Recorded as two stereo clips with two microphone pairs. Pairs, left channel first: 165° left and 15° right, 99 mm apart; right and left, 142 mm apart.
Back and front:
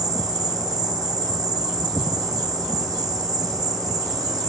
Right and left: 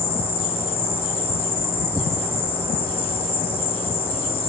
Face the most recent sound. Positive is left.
turn(degrees=-55)